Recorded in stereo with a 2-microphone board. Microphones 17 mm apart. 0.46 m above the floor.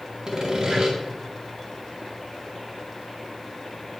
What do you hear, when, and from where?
0.3 s sawing: 40° right (ahead or behind), 2 m